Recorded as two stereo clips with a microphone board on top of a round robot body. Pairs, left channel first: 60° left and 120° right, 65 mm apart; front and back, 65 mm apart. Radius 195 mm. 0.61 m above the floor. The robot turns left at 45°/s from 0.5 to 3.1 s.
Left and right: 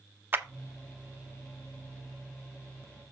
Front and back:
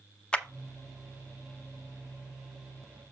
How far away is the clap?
About 1.0 m.